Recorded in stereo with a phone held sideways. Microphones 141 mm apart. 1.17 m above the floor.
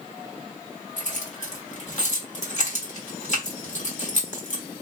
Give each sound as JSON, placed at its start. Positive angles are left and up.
{"t": 1.0, "sound": "keys jangling", "side_deg": 55, "distance_m": 1.2}